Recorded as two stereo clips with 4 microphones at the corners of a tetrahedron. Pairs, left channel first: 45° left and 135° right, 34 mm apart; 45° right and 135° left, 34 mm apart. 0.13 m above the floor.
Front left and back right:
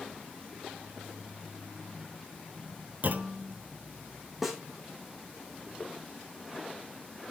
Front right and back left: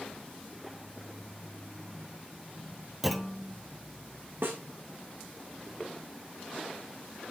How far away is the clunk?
About 0.7 m.